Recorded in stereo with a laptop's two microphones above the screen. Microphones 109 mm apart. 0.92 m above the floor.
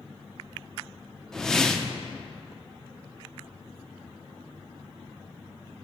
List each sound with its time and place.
1.3 s a whoosh: 5° left (ahead or behind), 0.7 m